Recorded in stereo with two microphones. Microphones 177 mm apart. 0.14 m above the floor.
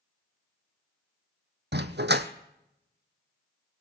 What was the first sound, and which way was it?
A dog barking, 75° right (ahead or behind).